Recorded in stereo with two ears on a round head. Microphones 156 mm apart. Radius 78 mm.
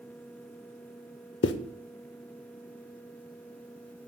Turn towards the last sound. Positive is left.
turn(degrees=70)  # may be behind; listen again after turning